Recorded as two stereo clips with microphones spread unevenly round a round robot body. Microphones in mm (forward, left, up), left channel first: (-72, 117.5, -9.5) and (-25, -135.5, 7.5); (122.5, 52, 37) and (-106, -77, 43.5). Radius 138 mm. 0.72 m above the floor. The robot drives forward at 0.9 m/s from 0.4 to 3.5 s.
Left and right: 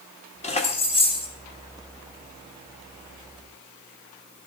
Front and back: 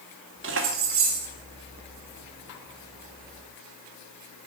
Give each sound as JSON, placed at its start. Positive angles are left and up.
{"t": 0.4, "sound": "keys jangling", "azimuth_deg": 165, "distance_m": 1.4}